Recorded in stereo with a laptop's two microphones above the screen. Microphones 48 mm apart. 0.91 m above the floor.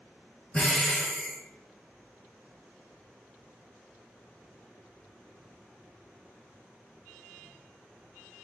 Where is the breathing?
15° left (ahead or behind), 1.0 m.